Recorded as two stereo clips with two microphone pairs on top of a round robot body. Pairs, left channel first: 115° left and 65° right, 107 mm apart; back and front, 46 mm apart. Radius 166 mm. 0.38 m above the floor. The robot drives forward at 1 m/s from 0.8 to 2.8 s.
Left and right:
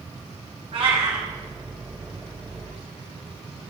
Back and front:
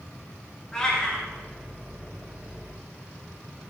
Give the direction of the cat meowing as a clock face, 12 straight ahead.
4 o'clock.